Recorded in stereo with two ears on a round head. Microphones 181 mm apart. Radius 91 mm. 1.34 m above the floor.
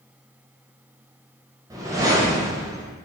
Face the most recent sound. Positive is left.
turn(degrees=-15)  # may be behind; listen again after turning